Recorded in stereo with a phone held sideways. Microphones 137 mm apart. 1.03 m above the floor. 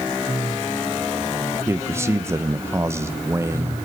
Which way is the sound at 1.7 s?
20° right (ahead or behind).